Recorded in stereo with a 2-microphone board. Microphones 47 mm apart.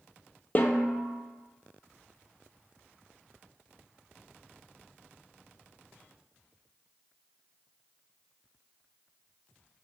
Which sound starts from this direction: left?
A snare drum, at 0.6 s.